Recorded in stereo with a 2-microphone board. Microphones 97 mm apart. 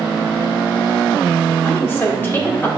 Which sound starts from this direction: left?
A woman speaking, at 1.6 s.